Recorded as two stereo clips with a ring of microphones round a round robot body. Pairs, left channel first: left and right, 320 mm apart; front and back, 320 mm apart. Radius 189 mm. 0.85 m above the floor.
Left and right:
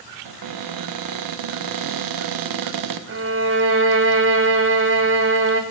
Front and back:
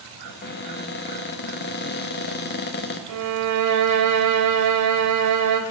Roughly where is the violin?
Behind right.